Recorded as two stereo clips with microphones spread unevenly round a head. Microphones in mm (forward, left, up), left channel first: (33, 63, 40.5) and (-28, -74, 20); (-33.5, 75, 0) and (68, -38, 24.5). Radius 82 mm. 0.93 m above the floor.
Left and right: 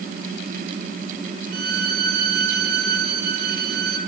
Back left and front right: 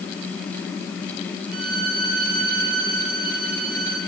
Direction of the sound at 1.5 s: 90° right.